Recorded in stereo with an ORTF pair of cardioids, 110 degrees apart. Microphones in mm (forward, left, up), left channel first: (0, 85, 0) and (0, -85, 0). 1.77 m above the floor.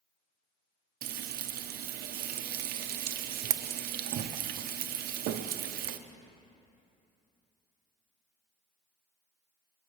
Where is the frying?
70° right, 0.8 m.